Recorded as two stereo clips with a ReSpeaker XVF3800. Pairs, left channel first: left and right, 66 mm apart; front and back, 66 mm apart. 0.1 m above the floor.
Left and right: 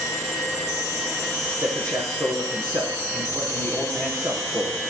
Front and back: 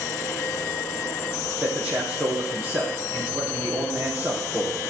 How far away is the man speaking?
About 4 m.